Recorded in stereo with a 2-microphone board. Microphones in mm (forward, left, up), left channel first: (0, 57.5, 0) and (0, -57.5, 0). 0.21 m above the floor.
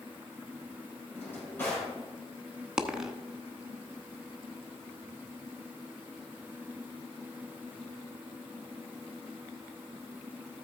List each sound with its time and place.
1.1 s a drawer: 15° left (ahead or behind), 6 m
2.8 s a dropped coin: 5° right (ahead or behind), 0.9 m